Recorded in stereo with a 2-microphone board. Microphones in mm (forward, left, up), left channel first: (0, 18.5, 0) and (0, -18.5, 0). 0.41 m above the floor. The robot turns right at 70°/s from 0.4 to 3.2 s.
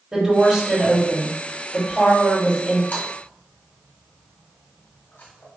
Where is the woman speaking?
35° right, 1.6 m; by 2.8 s 135° left, 1.6 m.